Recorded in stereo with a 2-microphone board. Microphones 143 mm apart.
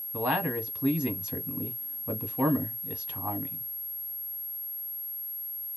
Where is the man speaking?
5° right (ahead or behind), 1.2 m.